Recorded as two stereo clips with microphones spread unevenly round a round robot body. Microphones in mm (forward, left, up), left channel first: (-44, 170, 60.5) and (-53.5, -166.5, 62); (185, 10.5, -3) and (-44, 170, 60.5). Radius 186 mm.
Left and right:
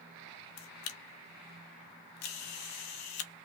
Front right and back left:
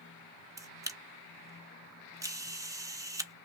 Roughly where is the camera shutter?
Ahead left.